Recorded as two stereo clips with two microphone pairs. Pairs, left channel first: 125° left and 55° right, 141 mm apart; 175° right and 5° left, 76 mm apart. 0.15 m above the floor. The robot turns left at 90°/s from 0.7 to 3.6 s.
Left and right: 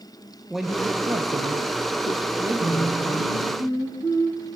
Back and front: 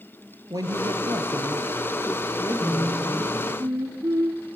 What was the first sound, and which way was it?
A woman speaking, 30° left.